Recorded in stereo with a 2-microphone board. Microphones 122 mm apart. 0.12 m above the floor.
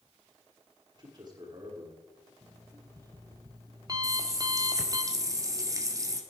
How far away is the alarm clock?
About 2.0 m.